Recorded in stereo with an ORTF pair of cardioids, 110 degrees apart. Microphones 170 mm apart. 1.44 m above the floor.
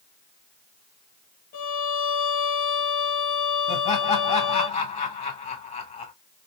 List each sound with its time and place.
1.5 s a violin: 55° left, 0.8 m
3.7 s laughter: 40° left, 1.6 m